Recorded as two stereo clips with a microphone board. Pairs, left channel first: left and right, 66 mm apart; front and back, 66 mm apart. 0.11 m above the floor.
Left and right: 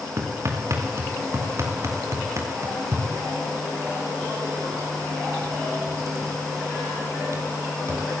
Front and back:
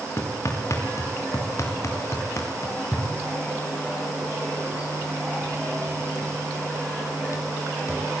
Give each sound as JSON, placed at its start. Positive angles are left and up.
{"t": 0.2, "sound": "hammering", "azimuth_deg": -45, "distance_m": 7.0}